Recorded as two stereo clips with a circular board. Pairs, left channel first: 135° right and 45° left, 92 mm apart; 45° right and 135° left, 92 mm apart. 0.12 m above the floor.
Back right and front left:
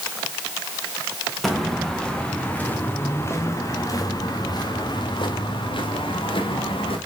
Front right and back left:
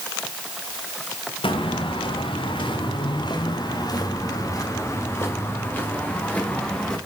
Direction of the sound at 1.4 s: 45° right.